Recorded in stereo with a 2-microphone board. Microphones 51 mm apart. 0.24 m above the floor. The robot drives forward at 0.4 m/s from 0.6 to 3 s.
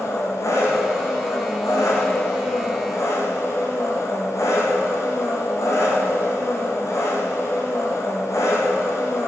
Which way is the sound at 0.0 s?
75° left (ahead or behind).